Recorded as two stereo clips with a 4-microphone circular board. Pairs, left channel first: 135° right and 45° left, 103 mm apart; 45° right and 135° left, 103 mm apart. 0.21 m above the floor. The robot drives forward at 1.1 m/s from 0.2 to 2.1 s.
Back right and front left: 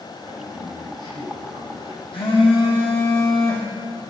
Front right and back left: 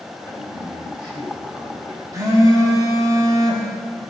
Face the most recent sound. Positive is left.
turn(degrees=-170)